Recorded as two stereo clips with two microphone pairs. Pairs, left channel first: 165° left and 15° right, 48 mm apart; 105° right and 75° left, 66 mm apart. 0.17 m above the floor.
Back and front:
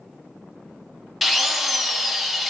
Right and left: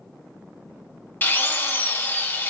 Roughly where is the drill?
Right.